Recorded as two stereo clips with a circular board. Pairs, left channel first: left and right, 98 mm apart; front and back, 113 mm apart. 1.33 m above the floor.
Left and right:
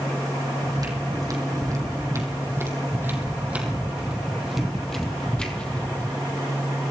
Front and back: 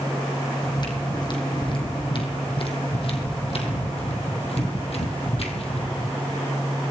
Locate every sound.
0.6 s footsteps: 45° right, 4 m; by 6.2 s 20° left, 3 m